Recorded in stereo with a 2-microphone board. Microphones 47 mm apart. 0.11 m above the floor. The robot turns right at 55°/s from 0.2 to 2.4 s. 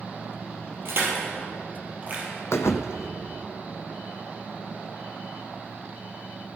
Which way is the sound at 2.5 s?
80° left.